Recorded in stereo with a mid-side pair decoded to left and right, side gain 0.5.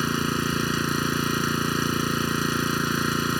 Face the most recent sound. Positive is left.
turn(degrees=0)